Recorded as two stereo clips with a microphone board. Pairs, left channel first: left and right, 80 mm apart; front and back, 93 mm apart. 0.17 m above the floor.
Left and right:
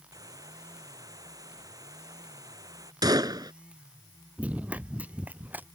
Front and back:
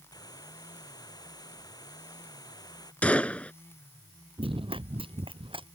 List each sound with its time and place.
0.1 s a hiss: 45° right
3.0 s a gunshot: 75° right
4.4 s running footsteps: 165° right; by 5.7 s 160° right